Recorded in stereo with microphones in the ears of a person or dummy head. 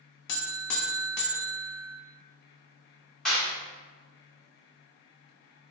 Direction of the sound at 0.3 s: 60° left (ahead or behind).